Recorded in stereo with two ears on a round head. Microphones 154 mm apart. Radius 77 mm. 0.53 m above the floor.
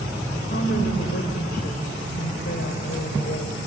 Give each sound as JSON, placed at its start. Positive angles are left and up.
{"t": 0.3, "sound": "a woman speaking", "side_deg": 60, "distance_m": 2.5}